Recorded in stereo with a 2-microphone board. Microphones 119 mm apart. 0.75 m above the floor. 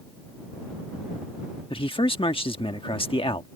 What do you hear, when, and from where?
1.7 s a man speaking: 50° left (ahead or behind)